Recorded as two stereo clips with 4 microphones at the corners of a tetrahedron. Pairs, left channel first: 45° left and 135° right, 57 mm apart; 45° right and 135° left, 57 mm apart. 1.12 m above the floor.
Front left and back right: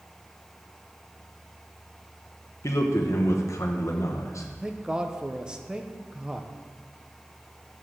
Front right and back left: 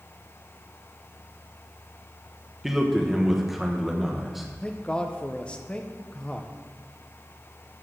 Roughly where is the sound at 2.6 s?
Ahead left.